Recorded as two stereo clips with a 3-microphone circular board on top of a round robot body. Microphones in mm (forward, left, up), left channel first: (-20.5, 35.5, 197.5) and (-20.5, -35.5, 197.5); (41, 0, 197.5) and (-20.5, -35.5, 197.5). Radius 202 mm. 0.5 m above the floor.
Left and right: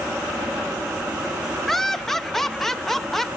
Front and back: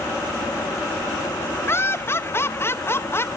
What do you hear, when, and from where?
1.7 s laughter: 5° left, 1.0 m